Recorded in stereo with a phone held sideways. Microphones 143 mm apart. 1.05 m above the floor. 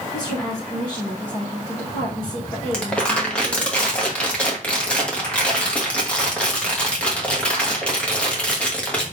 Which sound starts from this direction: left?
A woman speaking, at 0.1 s.